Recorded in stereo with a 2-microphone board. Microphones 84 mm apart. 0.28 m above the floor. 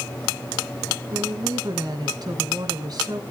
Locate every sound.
1.1 s a woman speaking: 50° right (ahead or behind), 2 m